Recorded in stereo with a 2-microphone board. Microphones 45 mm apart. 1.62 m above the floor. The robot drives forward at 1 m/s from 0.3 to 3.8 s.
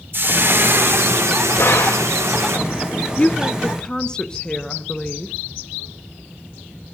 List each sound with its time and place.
0.1 s frying: 50° right (ahead or behind), 2.5 m; by 2.6 s 75° right (ahead or behind), 2 m
1.6 s a gunshot: 65° left (ahead or behind), 3.5 m; by 2.1 s 70° left (ahead or behind), 3 m
3.2 s a woman speaking: 30° left (ahead or behind), 0.7 m; by 5.3 s 15° left (ahead or behind), 1.2 m